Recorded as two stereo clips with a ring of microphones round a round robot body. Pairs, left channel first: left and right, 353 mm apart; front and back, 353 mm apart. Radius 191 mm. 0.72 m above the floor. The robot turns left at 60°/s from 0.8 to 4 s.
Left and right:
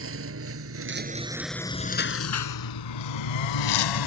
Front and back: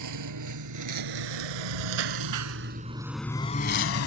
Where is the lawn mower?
145° right; by 4.1 s 55° left.